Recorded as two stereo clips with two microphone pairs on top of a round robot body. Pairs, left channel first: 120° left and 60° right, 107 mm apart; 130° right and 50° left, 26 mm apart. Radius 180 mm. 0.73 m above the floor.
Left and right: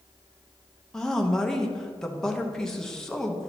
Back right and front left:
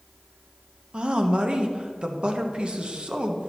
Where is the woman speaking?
40° left, 1.2 m.